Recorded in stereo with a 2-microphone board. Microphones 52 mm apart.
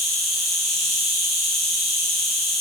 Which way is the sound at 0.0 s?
Centre (ahead or behind).